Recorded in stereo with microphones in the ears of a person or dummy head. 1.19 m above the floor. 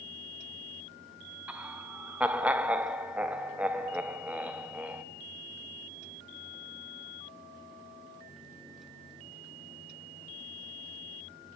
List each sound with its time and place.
1.5 s laughter: 5° right (ahead or behind), 0.6 m